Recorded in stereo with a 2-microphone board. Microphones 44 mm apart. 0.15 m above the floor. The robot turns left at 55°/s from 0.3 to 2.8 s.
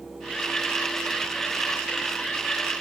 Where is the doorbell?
No doorbell in this recording.